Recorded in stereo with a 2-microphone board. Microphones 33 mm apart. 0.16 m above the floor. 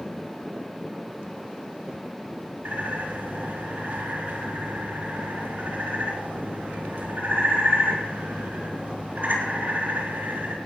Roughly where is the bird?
Right.